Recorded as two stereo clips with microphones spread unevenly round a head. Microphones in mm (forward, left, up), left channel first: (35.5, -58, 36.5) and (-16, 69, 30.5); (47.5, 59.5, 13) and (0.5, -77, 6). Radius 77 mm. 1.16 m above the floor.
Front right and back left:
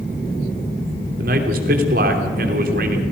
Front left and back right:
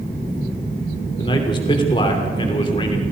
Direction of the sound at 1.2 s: 130° left.